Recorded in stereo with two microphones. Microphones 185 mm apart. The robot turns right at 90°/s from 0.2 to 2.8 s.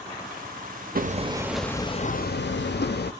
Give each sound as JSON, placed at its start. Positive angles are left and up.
{"t": 0.9, "sound": "hammering", "azimuth_deg": -55, "distance_m": 0.5}